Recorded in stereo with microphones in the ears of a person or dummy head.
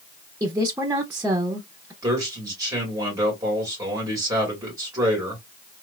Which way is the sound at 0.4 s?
15° right (ahead or behind).